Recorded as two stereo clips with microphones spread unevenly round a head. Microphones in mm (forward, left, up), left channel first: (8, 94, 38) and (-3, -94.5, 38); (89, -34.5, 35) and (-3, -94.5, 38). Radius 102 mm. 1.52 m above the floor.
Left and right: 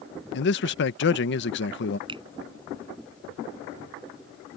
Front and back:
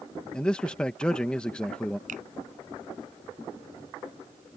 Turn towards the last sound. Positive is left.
turn(degrees=-160)